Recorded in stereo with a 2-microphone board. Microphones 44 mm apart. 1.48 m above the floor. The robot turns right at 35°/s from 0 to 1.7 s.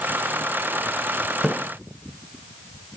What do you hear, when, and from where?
1.4 s a splash: centre (ahead or behind), 0.9 m; by 1.5 s 5° right (ahead or behind), 0.9 m